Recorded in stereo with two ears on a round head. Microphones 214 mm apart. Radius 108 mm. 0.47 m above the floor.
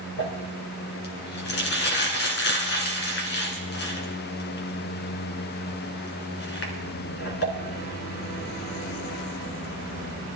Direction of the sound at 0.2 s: 50° left (ahead or behind).